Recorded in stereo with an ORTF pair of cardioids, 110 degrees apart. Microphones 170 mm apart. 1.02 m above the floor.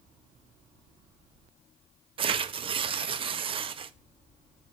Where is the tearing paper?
35° right, 0.6 m.